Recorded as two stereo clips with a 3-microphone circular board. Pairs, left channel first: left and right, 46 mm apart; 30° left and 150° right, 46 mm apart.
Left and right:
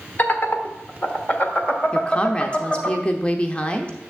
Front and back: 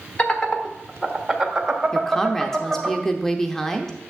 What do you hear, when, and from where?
0.2 s laughter: 75° left, 1.2 m; by 2.9 s 150° left, 2 m
1.9 s a woman speaking: 100° left, 0.7 m